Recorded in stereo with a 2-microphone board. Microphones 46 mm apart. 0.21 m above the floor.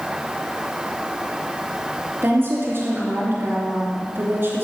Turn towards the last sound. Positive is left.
turn(degrees=-45)  # may be behind; listen again after turning